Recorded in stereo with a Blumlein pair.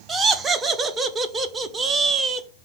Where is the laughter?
20° right, 0.6 m.